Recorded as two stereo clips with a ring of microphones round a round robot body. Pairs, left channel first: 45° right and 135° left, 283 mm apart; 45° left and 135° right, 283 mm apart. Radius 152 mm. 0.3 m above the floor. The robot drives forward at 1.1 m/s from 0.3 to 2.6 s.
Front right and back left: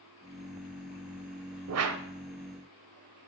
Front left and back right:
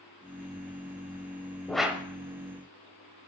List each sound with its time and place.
1.7 s a whoosh: 130° left, 0.9 m; by 2.0 s 145° left, 1.2 m